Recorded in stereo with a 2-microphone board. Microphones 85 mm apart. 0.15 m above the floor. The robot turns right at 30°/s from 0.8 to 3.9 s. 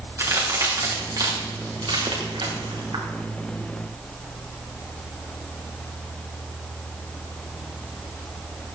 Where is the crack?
40° right (ahead or behind), 4.5 m; by 3.0 s 75° right (ahead or behind), 4.5 m.